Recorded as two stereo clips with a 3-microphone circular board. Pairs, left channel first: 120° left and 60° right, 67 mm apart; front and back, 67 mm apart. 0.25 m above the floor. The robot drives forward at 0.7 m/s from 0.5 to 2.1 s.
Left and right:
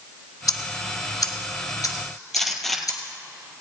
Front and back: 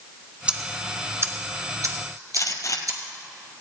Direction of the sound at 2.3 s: 35° left.